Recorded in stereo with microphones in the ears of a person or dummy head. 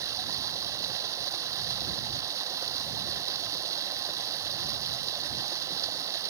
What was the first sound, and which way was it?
Running water, 15° right (ahead or behind).